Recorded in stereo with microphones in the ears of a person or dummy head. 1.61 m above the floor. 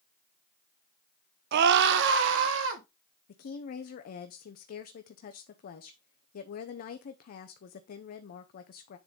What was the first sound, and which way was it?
A scream, 60° right (ahead or behind).